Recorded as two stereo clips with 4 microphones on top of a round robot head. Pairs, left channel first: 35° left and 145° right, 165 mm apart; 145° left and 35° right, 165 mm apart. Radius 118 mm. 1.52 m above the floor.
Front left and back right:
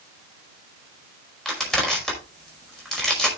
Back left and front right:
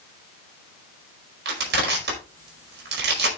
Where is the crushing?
55° right, 5 m.